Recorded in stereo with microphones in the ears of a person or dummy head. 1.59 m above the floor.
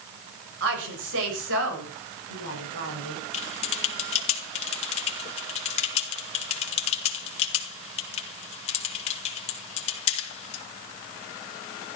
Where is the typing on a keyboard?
35° left (ahead or behind), 3 m.